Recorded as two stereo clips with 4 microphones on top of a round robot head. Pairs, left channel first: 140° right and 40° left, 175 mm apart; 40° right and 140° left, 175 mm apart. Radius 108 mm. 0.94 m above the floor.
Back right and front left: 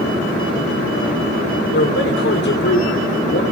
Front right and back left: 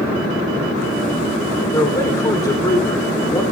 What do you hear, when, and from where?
1.7 s a man speaking: 115° right, 3.5 m